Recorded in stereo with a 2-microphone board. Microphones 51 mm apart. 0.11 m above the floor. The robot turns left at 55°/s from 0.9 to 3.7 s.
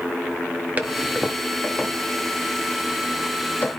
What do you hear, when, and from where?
0.8 s a toilet flushing: 30° right (ahead or behind), 1.5 m; by 3.7 s 40° left (ahead or behind), 1.5 m